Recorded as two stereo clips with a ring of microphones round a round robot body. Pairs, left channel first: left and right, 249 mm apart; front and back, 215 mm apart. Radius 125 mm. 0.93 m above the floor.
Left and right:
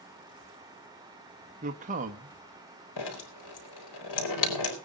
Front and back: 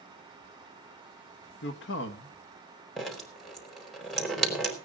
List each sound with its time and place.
1.6 s a man speaking: 35° right, 1.3 m
3.0 s dripping: 90° left, 4 m